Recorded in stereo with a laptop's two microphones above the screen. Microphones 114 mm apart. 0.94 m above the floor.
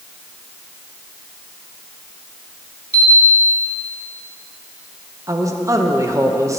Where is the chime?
15° left (ahead or behind), 2.5 m.